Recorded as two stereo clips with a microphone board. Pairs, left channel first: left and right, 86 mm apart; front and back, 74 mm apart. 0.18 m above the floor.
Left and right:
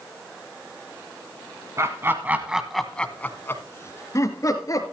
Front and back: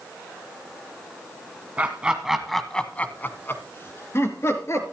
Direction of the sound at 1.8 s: 120° right.